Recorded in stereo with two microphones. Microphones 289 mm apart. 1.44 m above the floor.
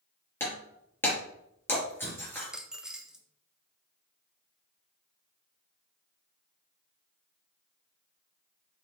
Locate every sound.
0.4 s breaking glass: 5° left (ahead or behind), 4.5 m
2.4 s a dropped coin: centre (ahead or behind), 1.0 m